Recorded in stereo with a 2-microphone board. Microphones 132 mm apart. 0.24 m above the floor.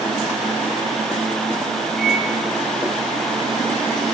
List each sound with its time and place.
2.0 s a microwave: 5° left (ahead or behind), 5.5 m